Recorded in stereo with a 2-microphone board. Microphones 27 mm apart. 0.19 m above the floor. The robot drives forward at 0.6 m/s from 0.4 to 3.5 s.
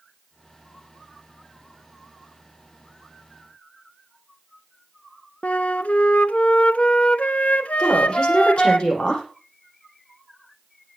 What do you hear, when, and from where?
5.4 s a flute: 60° left (ahead or behind), 0.8 m
7.8 s a woman speaking: 40° left (ahead or behind), 9 m